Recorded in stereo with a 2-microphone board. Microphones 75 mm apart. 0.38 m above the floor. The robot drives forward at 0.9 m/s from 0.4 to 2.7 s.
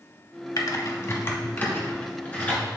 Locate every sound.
0.6 s typing on a keyboard: 60° left (ahead or behind), 0.9 m; by 2.6 s 20° left (ahead or behind), 2.5 m